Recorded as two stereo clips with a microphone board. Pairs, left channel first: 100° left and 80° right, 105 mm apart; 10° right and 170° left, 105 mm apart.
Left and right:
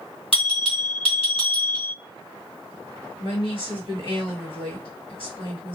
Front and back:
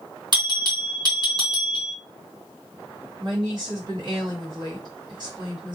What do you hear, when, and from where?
0.3 s a bell: 125° left, 2.5 m
3.2 s a woman speaking: 125° left, 2.5 m